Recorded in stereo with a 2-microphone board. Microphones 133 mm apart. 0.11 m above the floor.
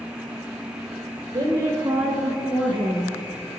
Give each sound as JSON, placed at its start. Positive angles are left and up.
{"t": 1.3, "sound": "a woman speaking", "side_deg": -30, "distance_m": 1.3}